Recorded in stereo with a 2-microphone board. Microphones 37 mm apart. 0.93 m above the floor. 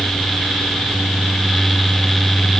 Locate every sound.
Only background noise.